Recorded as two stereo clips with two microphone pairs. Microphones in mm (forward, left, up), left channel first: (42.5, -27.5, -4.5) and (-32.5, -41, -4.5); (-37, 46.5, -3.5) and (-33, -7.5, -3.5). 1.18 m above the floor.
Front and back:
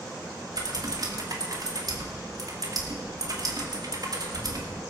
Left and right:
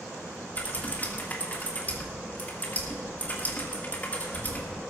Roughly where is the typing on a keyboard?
Behind left.